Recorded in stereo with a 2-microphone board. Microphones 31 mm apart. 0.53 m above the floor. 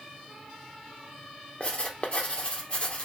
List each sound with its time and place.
1.6 s writing: 35° left (ahead or behind), 0.8 m